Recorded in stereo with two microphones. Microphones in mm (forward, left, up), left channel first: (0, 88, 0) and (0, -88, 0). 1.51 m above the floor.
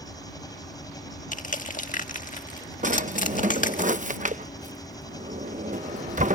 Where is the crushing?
45° left (ahead or behind).